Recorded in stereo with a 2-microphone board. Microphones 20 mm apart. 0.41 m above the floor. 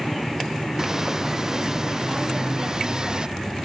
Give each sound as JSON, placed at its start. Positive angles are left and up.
{"t": 0.8, "sound": "footsteps", "side_deg": -25}